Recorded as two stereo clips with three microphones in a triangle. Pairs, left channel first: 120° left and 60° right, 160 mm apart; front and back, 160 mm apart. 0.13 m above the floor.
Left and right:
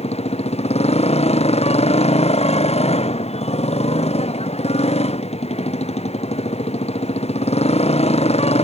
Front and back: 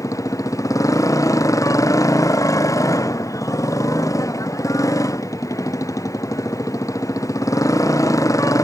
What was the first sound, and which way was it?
A motorcycle, 70° left.